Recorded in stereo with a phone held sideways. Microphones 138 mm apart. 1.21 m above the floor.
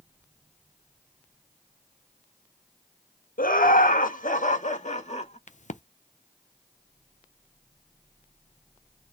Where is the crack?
60° left (ahead or behind), 0.5 m.